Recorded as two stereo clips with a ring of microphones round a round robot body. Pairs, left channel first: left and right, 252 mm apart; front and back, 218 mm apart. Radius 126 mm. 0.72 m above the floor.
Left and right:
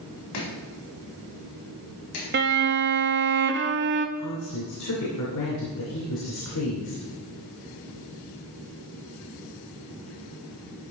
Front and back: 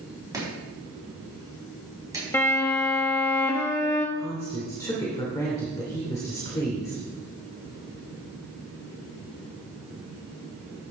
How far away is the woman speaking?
About 2.5 m.